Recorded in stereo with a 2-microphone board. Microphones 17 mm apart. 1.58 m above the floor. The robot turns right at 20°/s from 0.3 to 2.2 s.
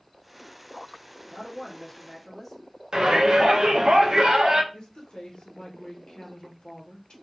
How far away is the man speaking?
About 1.0 m.